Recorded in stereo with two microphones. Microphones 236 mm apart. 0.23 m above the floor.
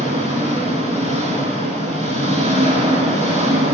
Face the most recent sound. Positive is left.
turn(degrees=-25)  # may be behind; listen again after turning